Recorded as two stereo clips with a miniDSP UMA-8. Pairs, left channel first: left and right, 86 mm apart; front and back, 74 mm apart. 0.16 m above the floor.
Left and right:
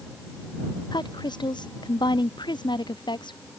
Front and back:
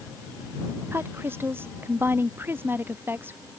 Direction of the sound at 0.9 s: 120° left.